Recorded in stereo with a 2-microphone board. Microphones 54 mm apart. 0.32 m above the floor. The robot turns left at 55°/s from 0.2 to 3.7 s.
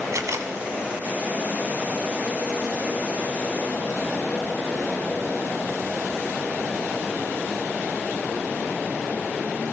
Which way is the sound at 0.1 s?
75° right (ahead or behind).